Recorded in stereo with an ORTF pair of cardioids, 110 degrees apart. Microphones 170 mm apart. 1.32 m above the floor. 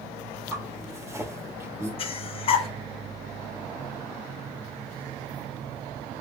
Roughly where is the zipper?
Ahead.